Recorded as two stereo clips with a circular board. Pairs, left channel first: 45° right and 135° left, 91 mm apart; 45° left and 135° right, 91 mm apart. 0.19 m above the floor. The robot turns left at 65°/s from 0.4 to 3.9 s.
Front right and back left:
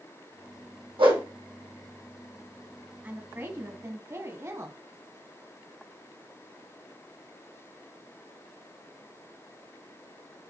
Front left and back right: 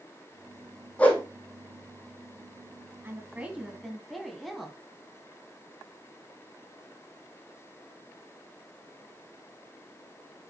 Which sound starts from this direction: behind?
A woman speaking, at 3.0 s.